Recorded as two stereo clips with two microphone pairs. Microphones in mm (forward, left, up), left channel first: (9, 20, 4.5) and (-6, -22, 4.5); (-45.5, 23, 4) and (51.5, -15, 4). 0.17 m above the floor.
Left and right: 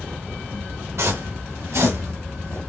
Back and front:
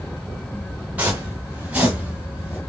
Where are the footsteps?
95° right, 1.7 m; by 2.6 s 100° right, 3.5 m.